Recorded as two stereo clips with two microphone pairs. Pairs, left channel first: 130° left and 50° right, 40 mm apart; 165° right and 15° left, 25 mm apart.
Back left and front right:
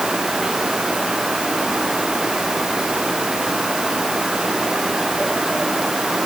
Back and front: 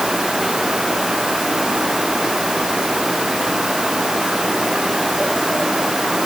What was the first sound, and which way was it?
Only background noise.